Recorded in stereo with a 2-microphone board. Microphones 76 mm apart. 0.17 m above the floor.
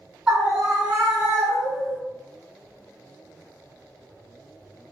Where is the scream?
10° right (ahead or behind), 2.0 m; by 2.0 s 40° right (ahead or behind), 1.9 m.